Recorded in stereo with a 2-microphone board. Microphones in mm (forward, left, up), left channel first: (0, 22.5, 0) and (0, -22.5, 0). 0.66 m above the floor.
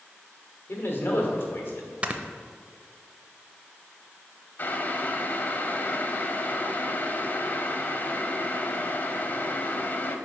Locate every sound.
0.7 s a man speaking: 55° left (ahead or behind), 1.5 m
2.0 s snoring: 30° right (ahead or behind), 0.5 m
4.6 s boiling: 45° left (ahead or behind), 0.6 m